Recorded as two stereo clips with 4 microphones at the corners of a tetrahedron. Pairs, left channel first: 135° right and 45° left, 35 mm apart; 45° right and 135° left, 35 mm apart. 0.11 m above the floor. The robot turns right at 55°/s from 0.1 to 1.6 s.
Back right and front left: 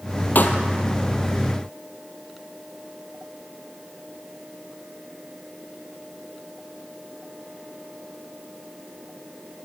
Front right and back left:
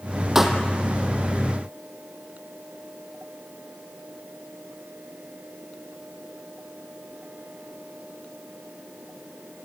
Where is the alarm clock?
No alarm clock in this recording.